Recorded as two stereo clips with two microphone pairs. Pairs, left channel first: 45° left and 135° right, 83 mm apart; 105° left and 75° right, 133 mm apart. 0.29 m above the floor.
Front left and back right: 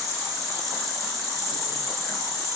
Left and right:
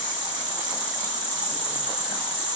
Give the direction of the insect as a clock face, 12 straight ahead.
6 o'clock.